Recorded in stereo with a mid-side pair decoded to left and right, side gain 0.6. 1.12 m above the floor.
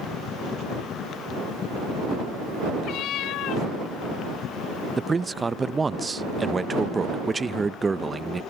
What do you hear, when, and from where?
2.8 s a cat meowing: 65° left
5.0 s a man speaking: 15° right